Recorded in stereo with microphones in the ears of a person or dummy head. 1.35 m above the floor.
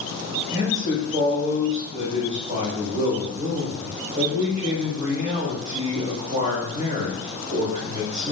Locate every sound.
0.5 s a man speaking: 35° right (ahead or behind), 1.7 m